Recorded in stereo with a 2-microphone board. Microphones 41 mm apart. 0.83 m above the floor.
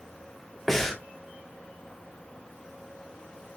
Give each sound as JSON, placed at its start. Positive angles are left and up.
{"t": 0.7, "sound": "breathing", "side_deg": 10, "distance_m": 1.5}